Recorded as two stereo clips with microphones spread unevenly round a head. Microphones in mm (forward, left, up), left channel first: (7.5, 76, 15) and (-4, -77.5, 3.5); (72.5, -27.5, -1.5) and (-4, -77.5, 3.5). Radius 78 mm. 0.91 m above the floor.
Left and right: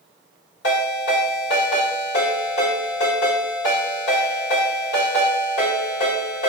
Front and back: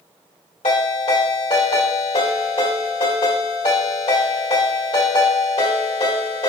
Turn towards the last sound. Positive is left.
turn(degrees=70)